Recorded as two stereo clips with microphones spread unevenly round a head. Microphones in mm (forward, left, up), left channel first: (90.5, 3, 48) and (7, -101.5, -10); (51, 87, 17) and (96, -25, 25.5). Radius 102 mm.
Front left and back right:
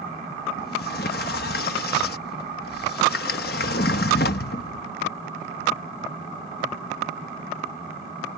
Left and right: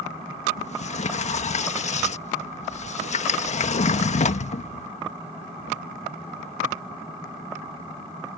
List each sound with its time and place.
0.6 s a sliding door: 80° left